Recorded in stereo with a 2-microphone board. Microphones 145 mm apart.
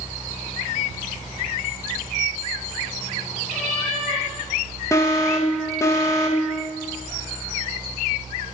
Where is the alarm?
20° left (ahead or behind), 1.4 m.